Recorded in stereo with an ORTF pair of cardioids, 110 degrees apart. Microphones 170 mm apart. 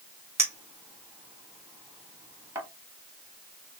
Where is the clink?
15° right, 2 m.